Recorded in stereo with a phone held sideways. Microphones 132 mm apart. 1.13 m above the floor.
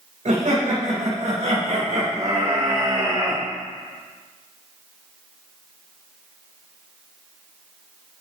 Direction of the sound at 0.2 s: 75° right (ahead or behind).